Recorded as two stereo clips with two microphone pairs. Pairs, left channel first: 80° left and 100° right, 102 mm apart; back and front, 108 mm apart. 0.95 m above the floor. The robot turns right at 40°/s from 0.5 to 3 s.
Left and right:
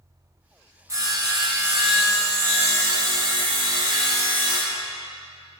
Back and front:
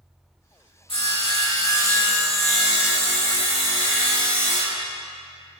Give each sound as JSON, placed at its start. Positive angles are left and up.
{"t": 0.9, "sound": "sawing", "azimuth_deg": -155, "distance_m": 1.3}